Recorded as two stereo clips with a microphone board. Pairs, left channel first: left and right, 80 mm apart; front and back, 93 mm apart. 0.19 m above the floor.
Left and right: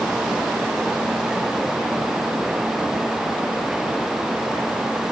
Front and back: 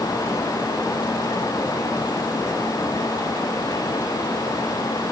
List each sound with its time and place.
Only background noise.